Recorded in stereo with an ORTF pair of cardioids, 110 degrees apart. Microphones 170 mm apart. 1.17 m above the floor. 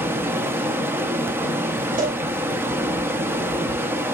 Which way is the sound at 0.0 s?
15° right.